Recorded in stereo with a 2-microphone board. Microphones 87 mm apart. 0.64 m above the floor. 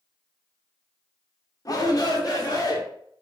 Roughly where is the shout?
Left.